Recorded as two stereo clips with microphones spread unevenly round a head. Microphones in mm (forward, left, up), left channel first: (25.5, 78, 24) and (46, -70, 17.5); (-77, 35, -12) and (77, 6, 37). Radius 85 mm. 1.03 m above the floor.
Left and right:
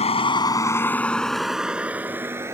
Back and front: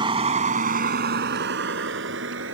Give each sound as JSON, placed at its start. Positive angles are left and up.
{"t": 0.0, "sound": "a vehicle", "azimuth_deg": 50}